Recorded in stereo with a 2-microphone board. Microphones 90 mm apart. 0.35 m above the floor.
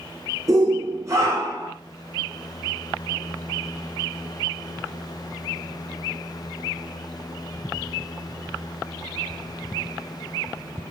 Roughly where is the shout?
Right.